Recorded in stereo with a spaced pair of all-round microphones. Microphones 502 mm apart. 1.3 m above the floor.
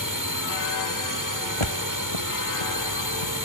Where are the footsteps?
70° left (ahead or behind); by 3.4 s 75° left (ahead or behind).